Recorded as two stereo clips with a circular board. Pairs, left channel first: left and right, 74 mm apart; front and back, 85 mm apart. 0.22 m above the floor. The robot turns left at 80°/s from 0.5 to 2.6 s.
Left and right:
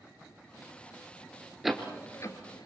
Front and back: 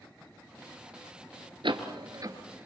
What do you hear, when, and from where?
1.6 s a door slam: 175° right, 2.5 m; by 2.7 s 110° left, 2.5 m